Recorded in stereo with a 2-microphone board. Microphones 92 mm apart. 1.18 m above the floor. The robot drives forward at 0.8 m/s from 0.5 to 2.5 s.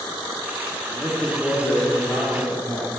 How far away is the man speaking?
About 2.5 m.